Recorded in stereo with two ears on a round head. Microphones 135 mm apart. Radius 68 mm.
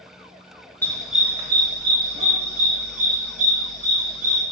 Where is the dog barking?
15° left (ahead or behind), 0.6 m; by 4.4 s 65° right (ahead or behind), 2.5 m.